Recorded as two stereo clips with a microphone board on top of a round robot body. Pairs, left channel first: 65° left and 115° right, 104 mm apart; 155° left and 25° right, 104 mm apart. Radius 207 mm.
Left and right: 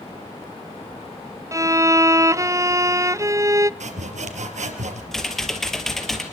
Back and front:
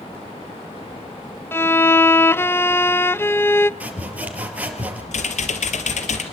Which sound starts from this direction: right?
Sawing, at 3.8 s.